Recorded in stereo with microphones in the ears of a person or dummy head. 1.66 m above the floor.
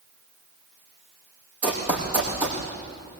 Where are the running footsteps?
5° right (ahead or behind), 4.5 m.